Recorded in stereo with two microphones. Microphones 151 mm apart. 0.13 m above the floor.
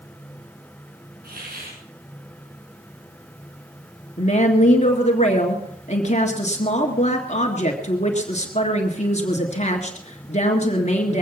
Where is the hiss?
85° right, 6 m.